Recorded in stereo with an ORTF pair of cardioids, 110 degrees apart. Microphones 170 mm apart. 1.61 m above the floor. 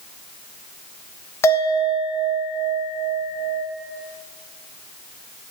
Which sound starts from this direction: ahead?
A bell, at 1.4 s.